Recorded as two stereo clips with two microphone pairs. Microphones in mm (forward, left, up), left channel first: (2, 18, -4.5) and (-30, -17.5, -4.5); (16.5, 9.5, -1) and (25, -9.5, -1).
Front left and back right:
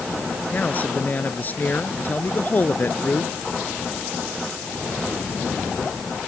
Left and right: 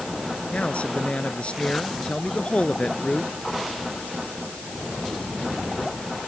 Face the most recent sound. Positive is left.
turn(degrees=95)